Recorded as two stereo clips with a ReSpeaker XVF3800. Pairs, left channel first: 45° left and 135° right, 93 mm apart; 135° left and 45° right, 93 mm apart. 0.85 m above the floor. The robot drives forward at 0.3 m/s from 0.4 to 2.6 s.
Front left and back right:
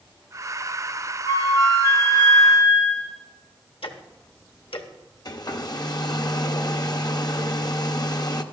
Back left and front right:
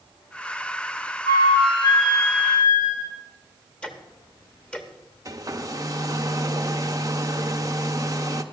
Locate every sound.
1.2 s a flute: 95° left, 3 m; by 3.1 s 100° left, 3 m
3.8 s ticking: 55° left, 1.0 m
5.2 s a hair dryer: 5° left, 0.6 m